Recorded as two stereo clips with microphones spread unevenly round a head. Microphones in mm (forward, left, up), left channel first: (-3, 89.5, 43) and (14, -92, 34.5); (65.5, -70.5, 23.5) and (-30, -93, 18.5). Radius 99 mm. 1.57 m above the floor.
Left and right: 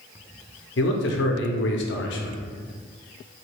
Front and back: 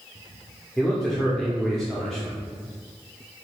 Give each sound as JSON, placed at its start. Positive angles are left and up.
{"t": 0.8, "sound": "a man speaking", "azimuth_deg": 100, "distance_m": 0.5}